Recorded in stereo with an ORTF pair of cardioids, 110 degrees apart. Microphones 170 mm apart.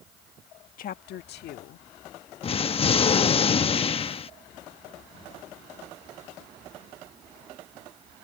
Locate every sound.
0.8 s a woman speaking: 50° left; by 1.9 s 75° left
2.4 s an explosion: 30° left